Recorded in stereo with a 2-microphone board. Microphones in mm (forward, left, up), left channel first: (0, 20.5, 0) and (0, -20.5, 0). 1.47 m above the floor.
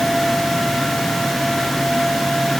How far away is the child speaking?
I don't hear a child speaking.